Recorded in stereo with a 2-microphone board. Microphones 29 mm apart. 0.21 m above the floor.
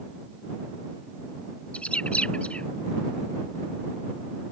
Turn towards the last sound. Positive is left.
turn(degrees=45)  # may be behind; listen again after turning